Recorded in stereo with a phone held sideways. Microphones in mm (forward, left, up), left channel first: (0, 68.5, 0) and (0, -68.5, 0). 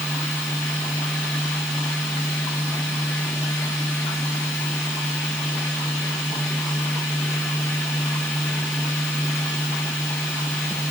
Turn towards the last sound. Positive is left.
turn(degrees=15)  # may be behind; listen again after turning